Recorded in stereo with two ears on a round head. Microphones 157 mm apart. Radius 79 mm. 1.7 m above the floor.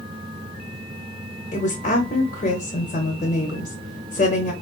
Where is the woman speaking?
40° left (ahead or behind), 0.7 m.